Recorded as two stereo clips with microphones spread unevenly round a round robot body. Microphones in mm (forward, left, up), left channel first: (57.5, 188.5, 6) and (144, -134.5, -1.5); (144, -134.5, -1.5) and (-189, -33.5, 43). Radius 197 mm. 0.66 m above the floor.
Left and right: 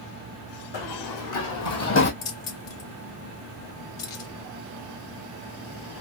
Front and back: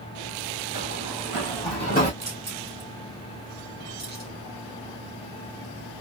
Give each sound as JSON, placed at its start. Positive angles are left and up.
{"t": 0.7, "sound": "running footsteps", "azimuth_deg": 95, "distance_m": 2.5}
{"t": 2.2, "sound": "keys jangling", "azimuth_deg": 80, "distance_m": 1.9}